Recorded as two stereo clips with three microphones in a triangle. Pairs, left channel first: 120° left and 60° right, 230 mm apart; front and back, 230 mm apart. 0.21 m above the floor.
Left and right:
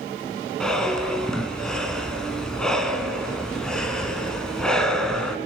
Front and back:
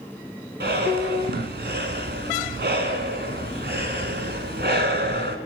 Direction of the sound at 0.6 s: 155° right.